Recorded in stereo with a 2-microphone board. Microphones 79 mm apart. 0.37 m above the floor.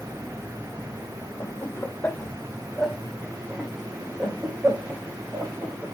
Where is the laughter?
35° left (ahead or behind), 1.3 m; by 5.8 s 40° right (ahead or behind), 2.5 m.